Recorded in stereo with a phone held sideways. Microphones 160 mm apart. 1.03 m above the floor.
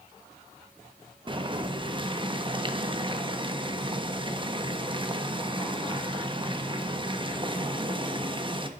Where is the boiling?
30° right (ahead or behind), 1.1 m.